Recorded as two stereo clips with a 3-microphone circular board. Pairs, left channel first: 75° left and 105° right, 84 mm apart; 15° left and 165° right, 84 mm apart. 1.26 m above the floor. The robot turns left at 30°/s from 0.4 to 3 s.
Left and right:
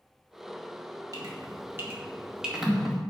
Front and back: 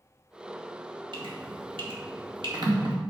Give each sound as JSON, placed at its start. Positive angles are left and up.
{"t": 1.1, "sound": "dripping", "azimuth_deg": -150, "distance_m": 2.5}